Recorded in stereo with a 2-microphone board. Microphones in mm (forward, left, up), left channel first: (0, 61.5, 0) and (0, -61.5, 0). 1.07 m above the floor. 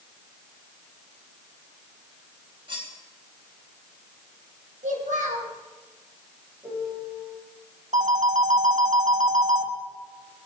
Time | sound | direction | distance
2.7 | cutlery clinking | 40° right (ahead or behind) | 3.5 m
4.8 | a child speaking | 80° right | 4.5 m
6.6 | a piano | 25° right (ahead or behind) | 6.5 m
7.9 | a phone ringing | 85° right | 1.1 m